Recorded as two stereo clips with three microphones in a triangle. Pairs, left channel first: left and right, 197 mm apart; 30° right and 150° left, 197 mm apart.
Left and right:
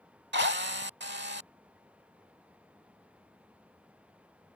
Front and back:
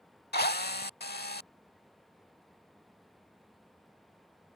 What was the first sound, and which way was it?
A drill, 65° right.